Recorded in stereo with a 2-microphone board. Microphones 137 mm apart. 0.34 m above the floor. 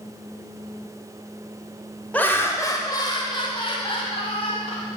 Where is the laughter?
10° left (ahead or behind), 0.9 m; by 4.8 s 45° left (ahead or behind), 2.5 m.